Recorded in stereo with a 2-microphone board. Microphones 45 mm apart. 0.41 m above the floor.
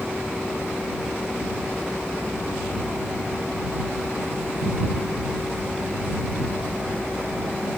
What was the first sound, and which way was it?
Only background noise.